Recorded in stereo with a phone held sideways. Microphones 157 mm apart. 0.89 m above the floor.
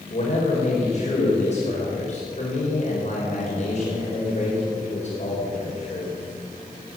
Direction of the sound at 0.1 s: 45° left (ahead or behind).